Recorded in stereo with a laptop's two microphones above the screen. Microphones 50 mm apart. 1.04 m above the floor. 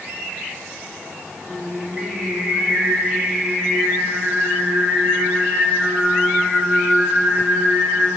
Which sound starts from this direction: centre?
Singing, at 1.4 s.